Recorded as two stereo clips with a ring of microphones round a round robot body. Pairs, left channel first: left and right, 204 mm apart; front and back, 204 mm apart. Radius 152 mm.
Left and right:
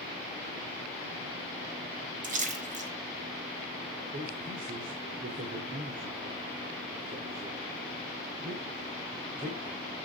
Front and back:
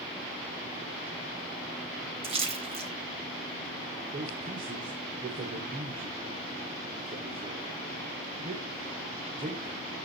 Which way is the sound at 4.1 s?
130° right.